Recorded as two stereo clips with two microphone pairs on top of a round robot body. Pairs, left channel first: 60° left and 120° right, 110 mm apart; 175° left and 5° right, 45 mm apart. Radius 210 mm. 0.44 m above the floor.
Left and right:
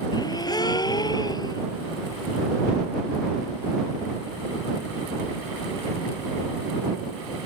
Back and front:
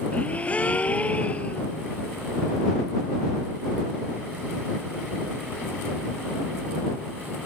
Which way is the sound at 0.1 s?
115° left.